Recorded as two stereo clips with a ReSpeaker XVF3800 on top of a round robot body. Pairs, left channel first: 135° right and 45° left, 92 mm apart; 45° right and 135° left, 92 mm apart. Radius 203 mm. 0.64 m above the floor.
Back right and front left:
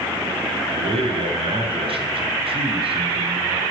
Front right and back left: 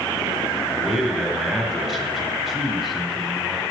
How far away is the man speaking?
About 2 m.